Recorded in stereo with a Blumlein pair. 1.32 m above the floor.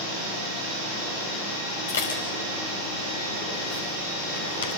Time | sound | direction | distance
1.9 | dishes clattering | 65° left | 5.5 m